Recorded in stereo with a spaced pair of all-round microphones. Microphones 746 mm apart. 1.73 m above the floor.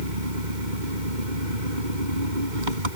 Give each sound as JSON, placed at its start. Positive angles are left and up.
{"t": 0.0, "sound": "an engine running", "side_deg": -85}